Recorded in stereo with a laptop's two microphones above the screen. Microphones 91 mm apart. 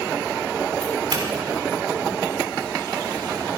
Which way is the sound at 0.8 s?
60° right (ahead or behind).